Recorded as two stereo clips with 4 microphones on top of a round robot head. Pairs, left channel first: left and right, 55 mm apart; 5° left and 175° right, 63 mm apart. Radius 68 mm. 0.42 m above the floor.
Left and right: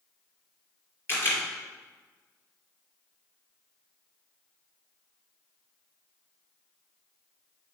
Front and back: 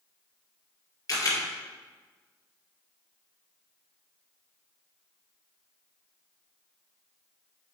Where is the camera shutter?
40° left, 2.5 m.